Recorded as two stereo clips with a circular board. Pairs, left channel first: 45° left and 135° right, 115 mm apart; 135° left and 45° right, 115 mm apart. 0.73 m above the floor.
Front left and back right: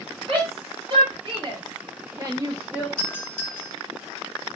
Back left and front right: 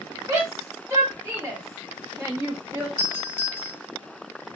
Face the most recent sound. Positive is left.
turn(degrees=100)